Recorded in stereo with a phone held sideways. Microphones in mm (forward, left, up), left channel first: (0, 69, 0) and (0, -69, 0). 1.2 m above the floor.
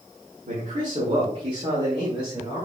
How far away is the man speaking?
About 1.6 m.